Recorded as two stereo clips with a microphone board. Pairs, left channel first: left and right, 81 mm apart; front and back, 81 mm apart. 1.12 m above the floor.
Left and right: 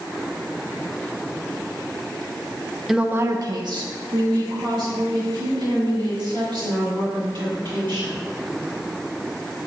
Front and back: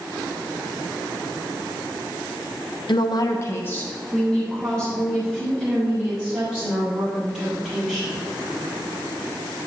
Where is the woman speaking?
Straight ahead, 0.6 m; by 8.2 s 90° right, 7 m.